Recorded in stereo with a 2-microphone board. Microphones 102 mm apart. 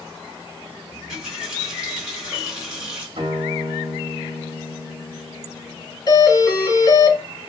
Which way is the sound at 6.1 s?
30° left (ahead or behind).